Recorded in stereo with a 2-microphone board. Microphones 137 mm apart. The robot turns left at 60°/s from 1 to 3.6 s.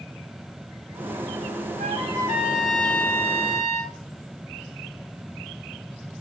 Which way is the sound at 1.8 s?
125° right.